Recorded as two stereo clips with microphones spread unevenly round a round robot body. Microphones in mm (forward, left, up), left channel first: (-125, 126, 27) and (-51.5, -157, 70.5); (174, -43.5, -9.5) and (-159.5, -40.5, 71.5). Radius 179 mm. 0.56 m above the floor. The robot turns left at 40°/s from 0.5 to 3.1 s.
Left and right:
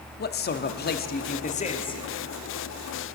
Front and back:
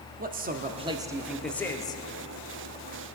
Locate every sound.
0.2 s a man speaking: 110° left, 0.8 m; by 2.0 s 45° left, 0.8 m